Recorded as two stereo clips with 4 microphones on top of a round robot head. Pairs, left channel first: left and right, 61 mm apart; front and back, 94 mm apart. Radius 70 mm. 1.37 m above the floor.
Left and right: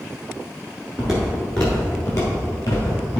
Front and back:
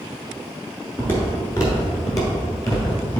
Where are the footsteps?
30° right, 1.3 m; by 3.2 s 40° left, 2 m.